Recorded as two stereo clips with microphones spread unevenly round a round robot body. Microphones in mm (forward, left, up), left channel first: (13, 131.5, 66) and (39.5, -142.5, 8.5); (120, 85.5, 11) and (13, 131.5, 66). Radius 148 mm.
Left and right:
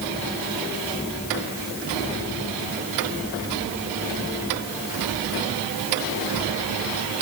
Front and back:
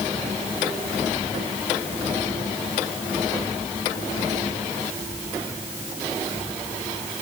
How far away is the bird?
No bird in this recording.